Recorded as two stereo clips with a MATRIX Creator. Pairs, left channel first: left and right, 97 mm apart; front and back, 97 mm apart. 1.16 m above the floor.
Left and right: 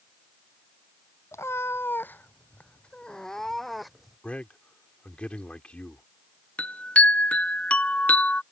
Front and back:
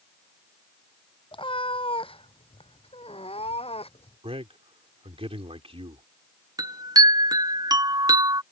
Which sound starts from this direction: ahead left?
A cat meowing, at 1.3 s.